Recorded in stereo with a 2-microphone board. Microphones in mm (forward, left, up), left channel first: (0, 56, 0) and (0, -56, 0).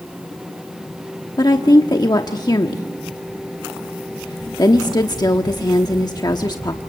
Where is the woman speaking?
35° left (ahead or behind), 1.0 m.